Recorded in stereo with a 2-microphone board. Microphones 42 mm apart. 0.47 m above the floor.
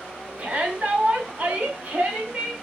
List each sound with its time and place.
0.4 s a shout: 40° right (ahead or behind), 3.5 m